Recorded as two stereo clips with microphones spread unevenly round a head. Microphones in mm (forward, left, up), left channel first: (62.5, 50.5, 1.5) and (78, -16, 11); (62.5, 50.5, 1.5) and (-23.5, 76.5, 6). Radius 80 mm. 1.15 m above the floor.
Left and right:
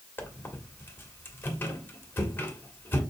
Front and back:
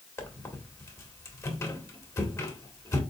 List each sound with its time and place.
0.2 s a squeak: 40° left, 1.6 m